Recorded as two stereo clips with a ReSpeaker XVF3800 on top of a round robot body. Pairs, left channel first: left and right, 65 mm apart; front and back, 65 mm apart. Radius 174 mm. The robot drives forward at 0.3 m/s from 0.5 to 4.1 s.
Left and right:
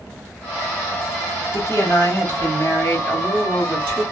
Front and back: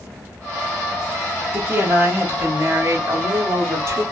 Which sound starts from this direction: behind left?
A woman speaking, at 1.5 s.